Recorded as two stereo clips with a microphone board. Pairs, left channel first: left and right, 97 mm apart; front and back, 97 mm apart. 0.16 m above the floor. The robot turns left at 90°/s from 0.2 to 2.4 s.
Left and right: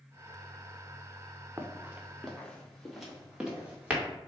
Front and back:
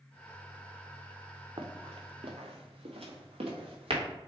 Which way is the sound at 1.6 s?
150° right.